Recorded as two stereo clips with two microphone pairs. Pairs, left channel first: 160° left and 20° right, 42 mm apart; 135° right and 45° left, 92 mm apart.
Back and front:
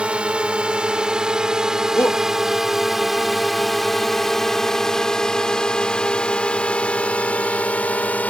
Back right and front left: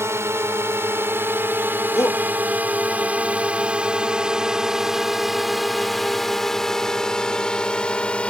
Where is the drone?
20° left; by 8.3 s 155° left.